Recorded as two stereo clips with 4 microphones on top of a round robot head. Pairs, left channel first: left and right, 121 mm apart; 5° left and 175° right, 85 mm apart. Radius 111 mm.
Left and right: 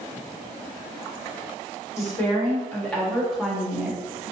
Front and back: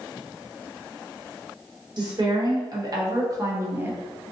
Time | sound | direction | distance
2.0 | a woman speaking | 160° left | 1.7 m